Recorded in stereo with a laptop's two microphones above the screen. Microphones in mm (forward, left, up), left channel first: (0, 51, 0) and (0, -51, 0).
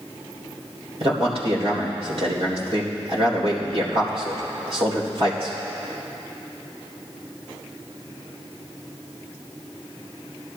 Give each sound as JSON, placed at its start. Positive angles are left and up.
{"t": 1.0, "sound": "a man speaking", "side_deg": -65, "distance_m": 3.0}